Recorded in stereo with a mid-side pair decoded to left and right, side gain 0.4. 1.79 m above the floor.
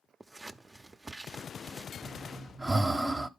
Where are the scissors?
20° right, 0.7 m.